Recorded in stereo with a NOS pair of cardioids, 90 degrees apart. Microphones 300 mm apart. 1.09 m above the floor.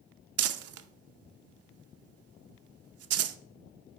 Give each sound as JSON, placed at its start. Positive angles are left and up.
{"t": 0.4, "sound": "crumpling", "azimuth_deg": -55, "distance_m": 0.7}